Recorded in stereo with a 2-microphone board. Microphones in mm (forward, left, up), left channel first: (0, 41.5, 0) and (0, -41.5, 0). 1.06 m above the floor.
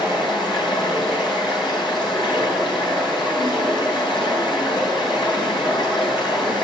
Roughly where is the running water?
Left.